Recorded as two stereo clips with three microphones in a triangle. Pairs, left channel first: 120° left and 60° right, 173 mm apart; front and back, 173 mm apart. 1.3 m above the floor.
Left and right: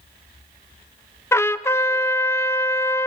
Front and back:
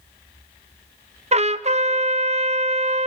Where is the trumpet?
175° right, 0.5 m.